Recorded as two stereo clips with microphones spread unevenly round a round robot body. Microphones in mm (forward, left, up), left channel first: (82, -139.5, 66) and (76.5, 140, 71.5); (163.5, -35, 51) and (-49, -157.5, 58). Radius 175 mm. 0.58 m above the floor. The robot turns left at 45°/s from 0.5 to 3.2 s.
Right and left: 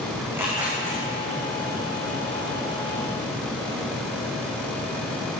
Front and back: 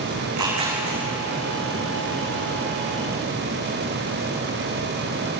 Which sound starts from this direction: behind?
Tearing paper, at 0.2 s.